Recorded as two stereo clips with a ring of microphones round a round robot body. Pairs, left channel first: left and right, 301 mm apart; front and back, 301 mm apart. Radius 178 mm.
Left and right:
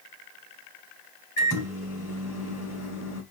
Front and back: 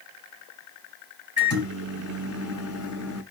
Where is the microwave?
40° left, 3 m.